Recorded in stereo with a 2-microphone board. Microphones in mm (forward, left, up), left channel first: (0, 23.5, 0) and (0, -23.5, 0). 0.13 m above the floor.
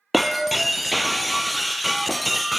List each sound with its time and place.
0.1 s breaking glass: centre (ahead or behind), 0.6 m